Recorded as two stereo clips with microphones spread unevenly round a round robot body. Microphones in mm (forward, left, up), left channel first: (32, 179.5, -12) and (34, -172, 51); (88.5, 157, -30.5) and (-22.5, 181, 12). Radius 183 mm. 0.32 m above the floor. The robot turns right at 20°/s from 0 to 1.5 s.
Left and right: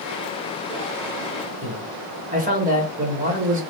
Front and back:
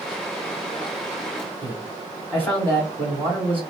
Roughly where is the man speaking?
Ahead right.